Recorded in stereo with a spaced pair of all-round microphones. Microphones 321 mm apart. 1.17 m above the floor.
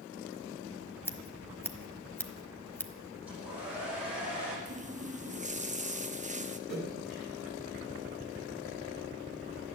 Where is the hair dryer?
5° right (ahead or behind), 7 m.